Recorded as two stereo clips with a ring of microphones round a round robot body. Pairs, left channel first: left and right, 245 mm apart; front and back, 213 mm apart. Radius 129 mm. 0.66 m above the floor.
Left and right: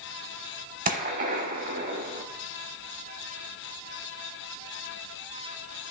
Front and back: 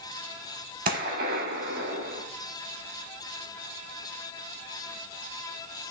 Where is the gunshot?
135° right, 0.6 m.